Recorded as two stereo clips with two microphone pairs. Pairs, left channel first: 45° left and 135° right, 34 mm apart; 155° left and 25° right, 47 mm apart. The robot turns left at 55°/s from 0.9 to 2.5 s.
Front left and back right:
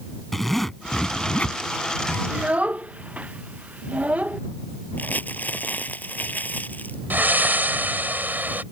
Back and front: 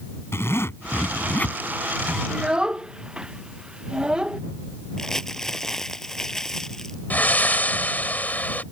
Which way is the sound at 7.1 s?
155° right.